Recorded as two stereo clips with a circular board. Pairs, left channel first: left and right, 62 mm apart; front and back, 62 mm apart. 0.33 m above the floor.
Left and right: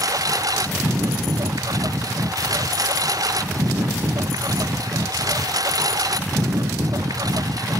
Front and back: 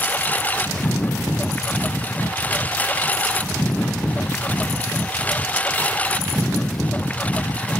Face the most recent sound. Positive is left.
turn(degrees=-70)